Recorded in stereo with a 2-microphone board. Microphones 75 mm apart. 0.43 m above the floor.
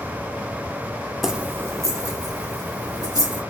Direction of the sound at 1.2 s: 5° right (ahead or behind).